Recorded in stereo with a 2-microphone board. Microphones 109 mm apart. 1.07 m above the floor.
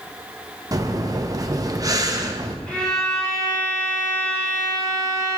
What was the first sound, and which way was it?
Breathing, 35° right (ahead or behind).